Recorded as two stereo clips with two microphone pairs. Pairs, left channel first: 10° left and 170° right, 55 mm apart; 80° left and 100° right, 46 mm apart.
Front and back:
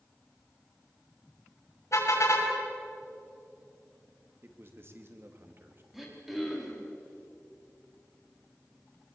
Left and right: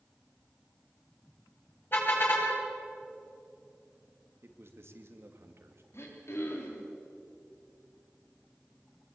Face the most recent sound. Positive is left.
turn(degrees=105)